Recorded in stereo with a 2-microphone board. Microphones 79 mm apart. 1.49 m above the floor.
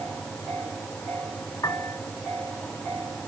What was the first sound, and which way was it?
A piano, 50° left (ahead or behind).